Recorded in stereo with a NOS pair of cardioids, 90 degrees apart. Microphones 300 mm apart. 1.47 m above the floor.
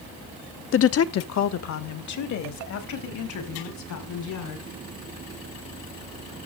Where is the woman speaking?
45° left, 0.7 m; by 4.7 s 70° left, 6 m.